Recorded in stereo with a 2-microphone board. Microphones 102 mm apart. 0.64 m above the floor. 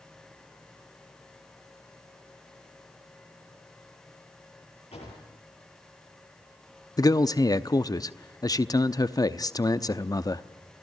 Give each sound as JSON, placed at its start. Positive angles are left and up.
{"t": 4.9, "sound": "a drawer", "side_deg": 85, "distance_m": 5.5}
{"t": 7.0, "sound": "a man speaking", "side_deg": 35, "distance_m": 0.7}